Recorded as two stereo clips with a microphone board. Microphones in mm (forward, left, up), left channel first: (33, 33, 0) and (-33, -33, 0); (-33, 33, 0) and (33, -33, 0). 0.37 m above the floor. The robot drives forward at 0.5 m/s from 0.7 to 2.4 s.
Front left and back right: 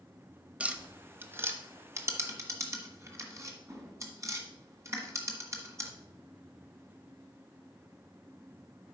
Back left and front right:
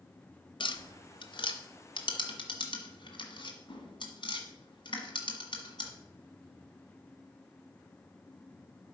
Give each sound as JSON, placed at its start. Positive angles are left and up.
{"t": 0.6, "sound": "tapping", "azimuth_deg": 150, "distance_m": 0.7}